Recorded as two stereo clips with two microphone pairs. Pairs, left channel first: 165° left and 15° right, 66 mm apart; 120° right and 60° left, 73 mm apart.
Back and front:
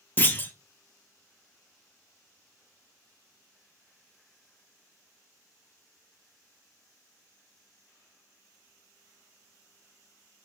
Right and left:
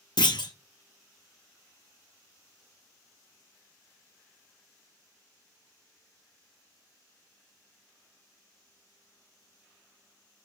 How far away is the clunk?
About 0.6 m.